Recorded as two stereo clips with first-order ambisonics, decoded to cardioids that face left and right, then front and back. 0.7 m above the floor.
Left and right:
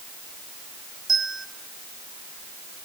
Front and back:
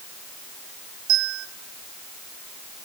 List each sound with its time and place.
1.1 s a bell: 165° right, 1.3 m